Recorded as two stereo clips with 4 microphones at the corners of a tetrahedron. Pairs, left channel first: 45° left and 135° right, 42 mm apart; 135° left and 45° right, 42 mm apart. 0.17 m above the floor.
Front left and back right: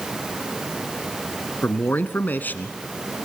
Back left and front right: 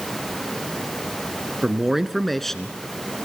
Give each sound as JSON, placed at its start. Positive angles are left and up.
{"t": 1.6, "sound": "a man speaking", "azimuth_deg": 25, "distance_m": 1.6}